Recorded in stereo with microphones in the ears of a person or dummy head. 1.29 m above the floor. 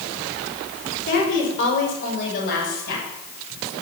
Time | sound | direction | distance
1.1 | a woman speaking | 40° left (ahead or behind) | 6 m